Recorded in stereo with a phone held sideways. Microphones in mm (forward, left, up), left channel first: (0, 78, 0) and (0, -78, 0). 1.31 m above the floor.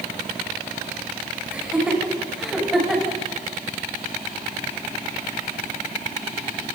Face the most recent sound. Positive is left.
turn(degrees=0)  # may be behind; listen again after turning